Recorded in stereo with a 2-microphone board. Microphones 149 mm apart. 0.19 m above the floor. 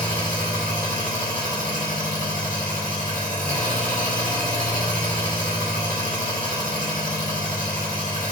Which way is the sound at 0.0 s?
60° right (ahead or behind).